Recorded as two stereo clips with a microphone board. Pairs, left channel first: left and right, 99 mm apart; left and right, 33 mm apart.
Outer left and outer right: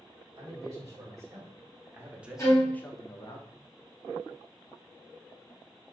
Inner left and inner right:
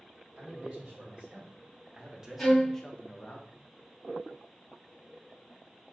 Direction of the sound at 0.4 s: 35° right (ahead or behind).